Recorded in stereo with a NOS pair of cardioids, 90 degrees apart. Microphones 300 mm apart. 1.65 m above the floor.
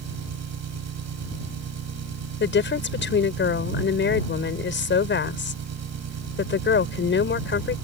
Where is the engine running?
60° right.